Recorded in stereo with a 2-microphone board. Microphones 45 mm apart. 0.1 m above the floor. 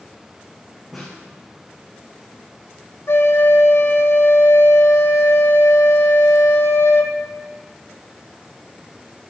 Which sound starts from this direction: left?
A flute, at 3.1 s.